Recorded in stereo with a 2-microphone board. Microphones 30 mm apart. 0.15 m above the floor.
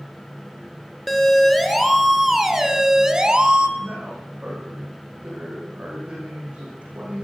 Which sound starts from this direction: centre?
A siren, at 1.1 s.